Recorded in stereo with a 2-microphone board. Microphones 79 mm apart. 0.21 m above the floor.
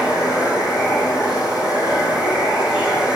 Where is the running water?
5° right (ahead or behind), 8.5 m.